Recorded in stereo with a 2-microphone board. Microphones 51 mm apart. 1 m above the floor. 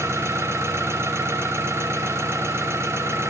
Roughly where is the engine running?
Right.